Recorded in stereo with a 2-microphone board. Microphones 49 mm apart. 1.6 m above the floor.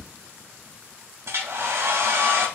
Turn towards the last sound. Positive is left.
turn(degrees=-65)  # may be behind; listen again after turning